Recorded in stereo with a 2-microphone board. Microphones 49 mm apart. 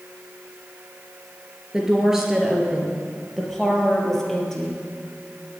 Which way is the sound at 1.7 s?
15° right (ahead or behind).